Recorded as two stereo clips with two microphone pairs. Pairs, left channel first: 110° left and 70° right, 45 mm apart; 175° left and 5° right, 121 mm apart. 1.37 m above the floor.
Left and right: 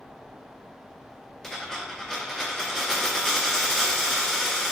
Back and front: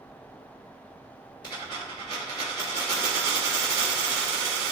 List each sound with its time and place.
1.4 s a dropped coin: 175° right, 1.6 m